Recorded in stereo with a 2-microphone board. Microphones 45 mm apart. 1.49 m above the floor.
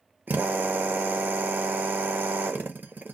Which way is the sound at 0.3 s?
45° right (ahead or behind).